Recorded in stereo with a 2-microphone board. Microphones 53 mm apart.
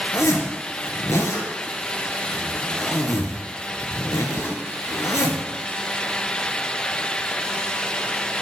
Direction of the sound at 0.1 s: 75° left (ahead or behind).